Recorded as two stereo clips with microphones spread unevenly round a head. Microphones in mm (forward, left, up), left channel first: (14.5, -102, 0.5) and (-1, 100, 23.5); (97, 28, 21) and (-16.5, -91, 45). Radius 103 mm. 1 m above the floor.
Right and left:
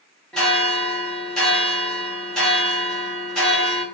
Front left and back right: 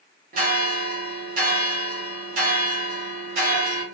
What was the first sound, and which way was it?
A bell, 165° right.